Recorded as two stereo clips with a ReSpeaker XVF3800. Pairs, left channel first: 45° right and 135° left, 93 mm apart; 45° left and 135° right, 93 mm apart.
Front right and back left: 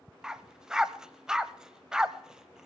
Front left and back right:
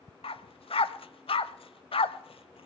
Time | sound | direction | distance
0.2 | a dog barking | 50° left | 0.6 m